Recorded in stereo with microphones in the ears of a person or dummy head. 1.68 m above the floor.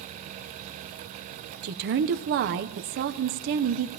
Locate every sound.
1.6 s a woman speaking: 40° right (ahead or behind), 0.7 m